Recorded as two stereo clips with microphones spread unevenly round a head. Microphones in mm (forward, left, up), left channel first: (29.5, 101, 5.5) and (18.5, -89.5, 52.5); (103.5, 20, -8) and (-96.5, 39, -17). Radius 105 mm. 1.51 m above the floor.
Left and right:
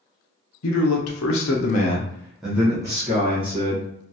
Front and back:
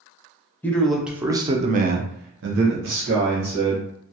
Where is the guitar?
No guitar in this recording.